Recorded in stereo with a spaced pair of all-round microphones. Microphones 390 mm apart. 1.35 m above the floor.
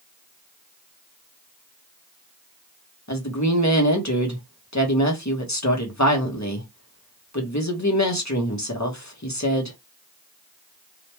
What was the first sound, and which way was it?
A woman speaking, 45° left (ahead or behind).